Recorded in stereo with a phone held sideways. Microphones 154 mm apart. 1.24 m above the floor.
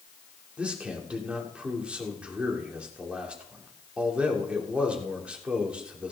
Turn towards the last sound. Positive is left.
turn(degrees=-10)  # may be behind; listen again after turning